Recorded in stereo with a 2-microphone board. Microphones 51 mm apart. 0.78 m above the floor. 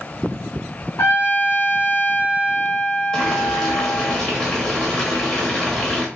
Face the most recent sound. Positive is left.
turn(degrees=10)  # may be behind; listen again after turning